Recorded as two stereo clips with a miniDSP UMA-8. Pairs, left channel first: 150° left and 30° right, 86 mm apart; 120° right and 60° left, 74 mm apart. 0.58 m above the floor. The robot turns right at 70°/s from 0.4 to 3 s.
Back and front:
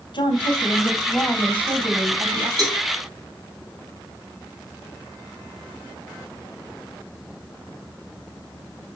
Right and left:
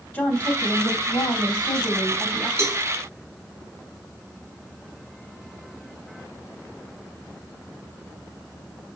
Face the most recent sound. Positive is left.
turn(degrees=35)